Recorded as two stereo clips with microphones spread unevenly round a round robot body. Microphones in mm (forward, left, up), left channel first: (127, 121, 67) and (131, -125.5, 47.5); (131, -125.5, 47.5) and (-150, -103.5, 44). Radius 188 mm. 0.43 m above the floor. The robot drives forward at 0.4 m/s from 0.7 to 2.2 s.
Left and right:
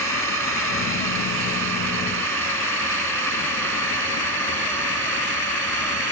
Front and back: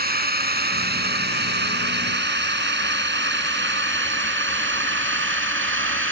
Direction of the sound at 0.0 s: 130° right.